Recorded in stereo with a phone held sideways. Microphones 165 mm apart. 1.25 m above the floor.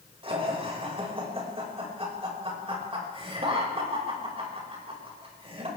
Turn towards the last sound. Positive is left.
turn(degrees=-35)  # may be behind; listen again after turning